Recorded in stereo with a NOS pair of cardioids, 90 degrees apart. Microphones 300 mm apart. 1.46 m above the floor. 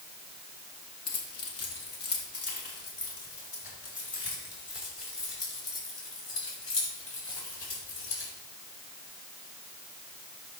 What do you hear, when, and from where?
1.1 s keys jangling: 55° left, 1.7 m; by 8.3 s 45° left, 7.5 m